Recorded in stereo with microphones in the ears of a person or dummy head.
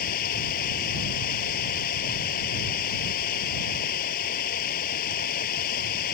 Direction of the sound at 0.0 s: 45° left (ahead or behind).